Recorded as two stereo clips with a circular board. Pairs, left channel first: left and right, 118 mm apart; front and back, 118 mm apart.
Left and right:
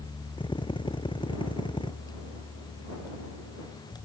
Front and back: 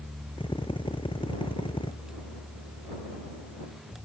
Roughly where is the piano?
No piano in this recording.